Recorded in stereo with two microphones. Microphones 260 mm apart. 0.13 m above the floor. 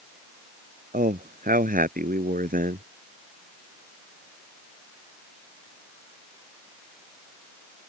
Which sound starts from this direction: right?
A man speaking, at 0.9 s.